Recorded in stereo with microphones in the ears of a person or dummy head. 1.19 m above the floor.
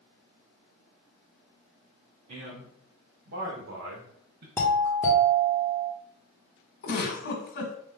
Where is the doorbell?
5° left (ahead or behind), 1.0 m.